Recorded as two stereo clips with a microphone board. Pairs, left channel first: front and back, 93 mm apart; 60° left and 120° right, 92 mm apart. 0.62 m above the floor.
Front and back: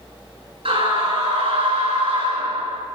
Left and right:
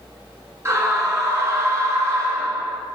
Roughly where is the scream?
Behind.